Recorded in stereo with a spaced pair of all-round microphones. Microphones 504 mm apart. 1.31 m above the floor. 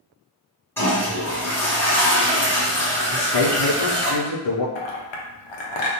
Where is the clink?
60° left (ahead or behind), 0.5 m.